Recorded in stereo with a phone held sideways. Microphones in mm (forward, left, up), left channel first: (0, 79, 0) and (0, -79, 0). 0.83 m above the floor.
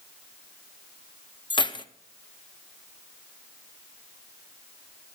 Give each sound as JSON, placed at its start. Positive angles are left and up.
{"t": 1.5, "sound": "keys jangling", "side_deg": 30, "distance_m": 0.6}